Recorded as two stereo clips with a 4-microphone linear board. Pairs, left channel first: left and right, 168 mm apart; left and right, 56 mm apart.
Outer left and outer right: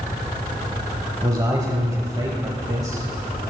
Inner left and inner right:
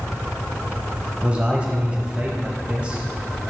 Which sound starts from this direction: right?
A man speaking, at 1.2 s.